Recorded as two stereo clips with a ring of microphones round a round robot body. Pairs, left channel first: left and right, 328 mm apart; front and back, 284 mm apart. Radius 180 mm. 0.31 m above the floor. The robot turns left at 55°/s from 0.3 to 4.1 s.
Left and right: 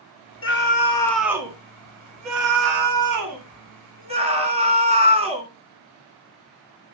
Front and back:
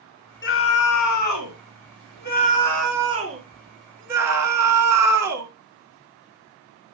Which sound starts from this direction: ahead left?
A scream, at 0.4 s.